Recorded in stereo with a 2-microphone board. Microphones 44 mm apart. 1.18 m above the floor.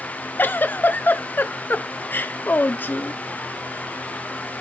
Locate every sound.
0.4 s a giggle: 45° left (ahead or behind), 0.6 m